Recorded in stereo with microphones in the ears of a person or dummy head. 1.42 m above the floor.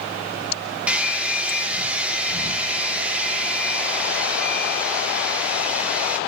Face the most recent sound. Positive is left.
turn(degrees=-5)  # may be behind; listen again after turning